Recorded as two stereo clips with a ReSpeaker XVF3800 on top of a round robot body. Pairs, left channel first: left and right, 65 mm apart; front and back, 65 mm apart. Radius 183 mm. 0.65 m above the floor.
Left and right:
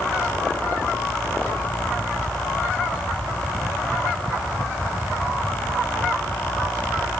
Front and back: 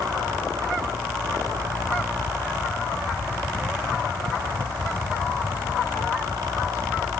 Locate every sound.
Only background noise.